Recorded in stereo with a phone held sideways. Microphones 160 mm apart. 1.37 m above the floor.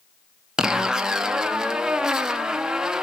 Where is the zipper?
5° right (ahead or behind), 0.8 m.